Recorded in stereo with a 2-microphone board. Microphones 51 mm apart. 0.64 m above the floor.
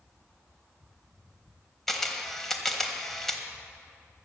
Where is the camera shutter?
5° left (ahead or behind), 1.3 m.